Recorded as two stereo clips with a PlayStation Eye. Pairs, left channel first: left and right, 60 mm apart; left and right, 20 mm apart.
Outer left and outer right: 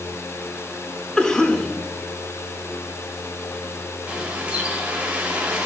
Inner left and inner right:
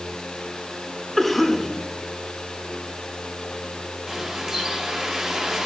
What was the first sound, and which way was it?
A cough, 10° left (ahead or behind).